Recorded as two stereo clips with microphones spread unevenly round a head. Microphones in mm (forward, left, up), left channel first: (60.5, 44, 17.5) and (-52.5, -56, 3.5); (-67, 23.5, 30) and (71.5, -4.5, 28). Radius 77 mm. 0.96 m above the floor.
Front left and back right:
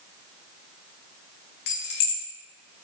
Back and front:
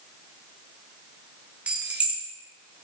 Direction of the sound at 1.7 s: 70° left.